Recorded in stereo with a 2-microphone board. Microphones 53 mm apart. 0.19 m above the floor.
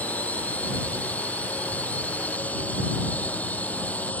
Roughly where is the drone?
Left.